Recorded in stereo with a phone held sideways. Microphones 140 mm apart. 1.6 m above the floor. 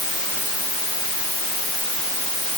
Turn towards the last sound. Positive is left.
No sound to turn to.